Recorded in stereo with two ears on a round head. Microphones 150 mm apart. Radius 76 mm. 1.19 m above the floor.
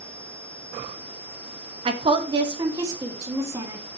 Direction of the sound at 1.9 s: 35° right (ahead or behind).